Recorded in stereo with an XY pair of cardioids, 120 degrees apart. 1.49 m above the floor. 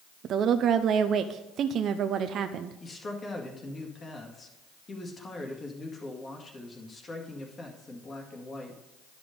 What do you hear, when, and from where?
0.2 s a woman speaking: 55° right, 0.5 m
2.8 s a man speaking: 30° left, 2.0 m